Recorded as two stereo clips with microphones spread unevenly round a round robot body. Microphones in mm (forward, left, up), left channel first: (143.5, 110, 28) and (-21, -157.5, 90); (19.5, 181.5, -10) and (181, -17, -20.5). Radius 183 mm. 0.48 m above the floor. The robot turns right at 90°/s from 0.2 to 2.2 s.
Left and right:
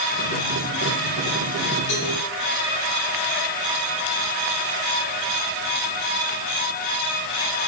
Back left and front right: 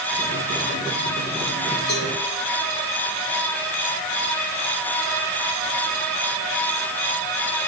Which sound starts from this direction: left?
A cowbell, at 1.9 s.